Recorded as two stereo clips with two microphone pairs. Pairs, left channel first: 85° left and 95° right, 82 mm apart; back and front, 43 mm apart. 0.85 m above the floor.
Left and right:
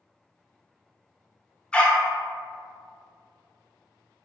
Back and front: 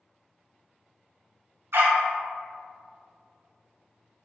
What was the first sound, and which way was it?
A dog barking, 5° left.